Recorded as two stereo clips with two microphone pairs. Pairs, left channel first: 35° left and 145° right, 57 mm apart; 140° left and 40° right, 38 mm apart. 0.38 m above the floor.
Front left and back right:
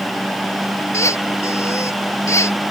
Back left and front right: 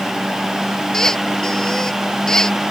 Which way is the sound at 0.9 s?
70° left.